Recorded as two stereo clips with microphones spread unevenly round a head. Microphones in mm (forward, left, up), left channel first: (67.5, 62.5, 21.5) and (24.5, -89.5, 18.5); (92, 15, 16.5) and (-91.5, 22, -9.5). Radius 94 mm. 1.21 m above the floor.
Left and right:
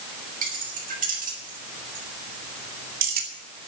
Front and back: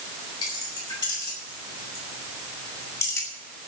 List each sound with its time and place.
0.4 s keys jangling: 70° right, 6 m; by 3.3 s 80° right, 2.5 m